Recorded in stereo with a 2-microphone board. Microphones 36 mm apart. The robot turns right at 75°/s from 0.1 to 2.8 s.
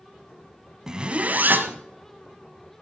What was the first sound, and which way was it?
A zipper, 165° right.